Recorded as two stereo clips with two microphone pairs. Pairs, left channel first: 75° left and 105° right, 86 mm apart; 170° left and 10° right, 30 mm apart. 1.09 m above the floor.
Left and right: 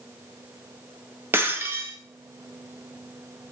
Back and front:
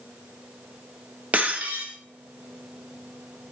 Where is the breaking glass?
45° right, 1.0 m.